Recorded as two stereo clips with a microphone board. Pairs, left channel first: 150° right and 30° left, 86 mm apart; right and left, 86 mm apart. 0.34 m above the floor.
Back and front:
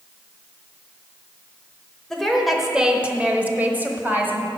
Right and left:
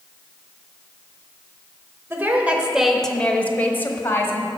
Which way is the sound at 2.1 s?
130° left.